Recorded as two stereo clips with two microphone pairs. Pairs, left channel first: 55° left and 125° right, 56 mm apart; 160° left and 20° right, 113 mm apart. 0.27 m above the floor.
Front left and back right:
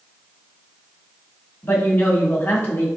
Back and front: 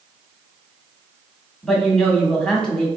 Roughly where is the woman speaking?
Left.